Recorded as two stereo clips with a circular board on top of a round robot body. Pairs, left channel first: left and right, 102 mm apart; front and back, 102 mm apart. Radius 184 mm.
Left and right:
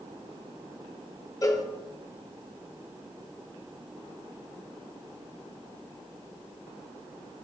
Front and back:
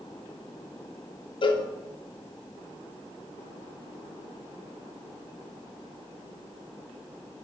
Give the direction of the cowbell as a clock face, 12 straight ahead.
11 o'clock.